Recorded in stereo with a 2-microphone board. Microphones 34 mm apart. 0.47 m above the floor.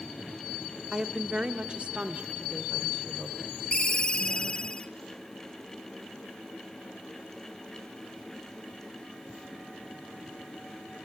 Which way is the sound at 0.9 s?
15° right (ahead or behind).